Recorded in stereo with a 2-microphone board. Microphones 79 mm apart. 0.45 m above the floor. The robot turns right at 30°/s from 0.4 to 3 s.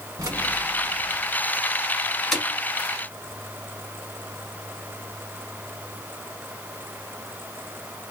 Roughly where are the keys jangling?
Right.